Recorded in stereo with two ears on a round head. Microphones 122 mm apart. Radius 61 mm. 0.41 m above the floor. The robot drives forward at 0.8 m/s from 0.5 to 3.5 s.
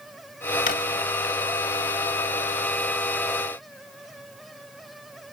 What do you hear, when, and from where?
0.7 s a drawer: 65° left (ahead or behind), 1.0 m; by 0.8 s 70° left (ahead or behind), 0.9 m